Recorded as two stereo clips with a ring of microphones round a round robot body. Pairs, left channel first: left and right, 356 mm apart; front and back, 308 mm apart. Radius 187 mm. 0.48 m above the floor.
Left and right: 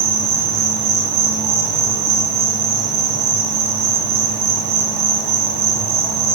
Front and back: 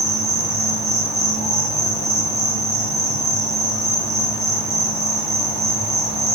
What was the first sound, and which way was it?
An insect, 90° right.